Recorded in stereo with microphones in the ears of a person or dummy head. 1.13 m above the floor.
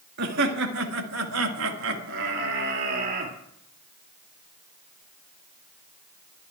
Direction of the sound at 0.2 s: 55° right (ahead or behind).